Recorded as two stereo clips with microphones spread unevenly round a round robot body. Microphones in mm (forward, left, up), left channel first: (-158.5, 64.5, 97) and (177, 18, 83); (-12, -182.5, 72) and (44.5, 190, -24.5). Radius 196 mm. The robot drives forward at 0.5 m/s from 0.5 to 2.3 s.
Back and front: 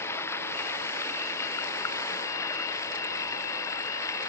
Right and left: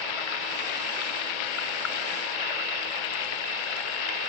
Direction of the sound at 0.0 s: 105° right.